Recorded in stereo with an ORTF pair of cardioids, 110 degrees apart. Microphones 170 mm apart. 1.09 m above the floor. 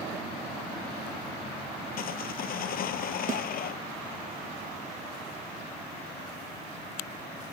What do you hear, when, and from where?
2.0 s sawing: 60° left
3.3 s a snare drum: 50° right